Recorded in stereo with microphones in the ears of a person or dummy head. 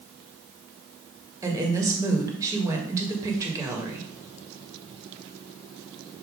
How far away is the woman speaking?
About 1.8 m.